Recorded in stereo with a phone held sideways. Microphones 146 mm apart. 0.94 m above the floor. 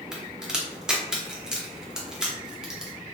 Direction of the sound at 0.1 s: 5° right (ahead or behind).